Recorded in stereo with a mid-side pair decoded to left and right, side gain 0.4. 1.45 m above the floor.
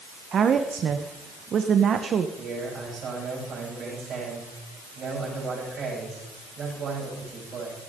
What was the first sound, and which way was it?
A woman speaking, 60° right.